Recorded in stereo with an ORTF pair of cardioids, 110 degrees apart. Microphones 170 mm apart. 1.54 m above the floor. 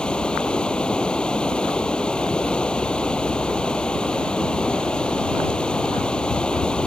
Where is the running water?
5° left.